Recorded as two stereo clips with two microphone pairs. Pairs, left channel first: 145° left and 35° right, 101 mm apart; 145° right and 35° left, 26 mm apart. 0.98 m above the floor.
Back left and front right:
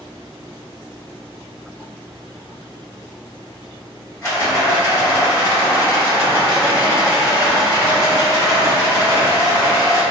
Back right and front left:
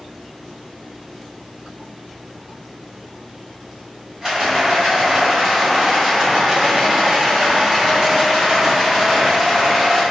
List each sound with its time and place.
4.2 s a rattle: 90° left, 1.3 m